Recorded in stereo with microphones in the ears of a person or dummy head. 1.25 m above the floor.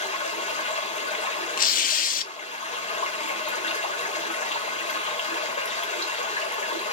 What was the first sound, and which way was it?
Running water, 40° left (ahead or behind).